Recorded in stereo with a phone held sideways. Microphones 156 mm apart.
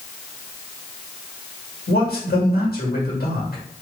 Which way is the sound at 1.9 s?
70° left (ahead or behind).